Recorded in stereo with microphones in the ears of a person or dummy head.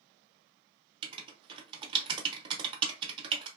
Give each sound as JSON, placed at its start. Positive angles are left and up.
{"t": 1.0, "sound": "writing", "side_deg": -25, "distance_m": 0.6}